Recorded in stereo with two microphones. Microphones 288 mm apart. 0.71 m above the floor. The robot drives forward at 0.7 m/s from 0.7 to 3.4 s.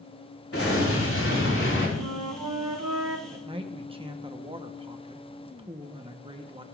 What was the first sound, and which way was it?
An explosion, 50° left (ahead or behind).